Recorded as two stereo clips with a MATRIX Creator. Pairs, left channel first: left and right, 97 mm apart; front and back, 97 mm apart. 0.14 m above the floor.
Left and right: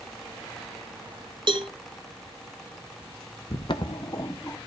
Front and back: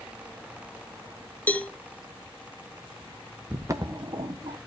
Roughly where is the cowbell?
Right.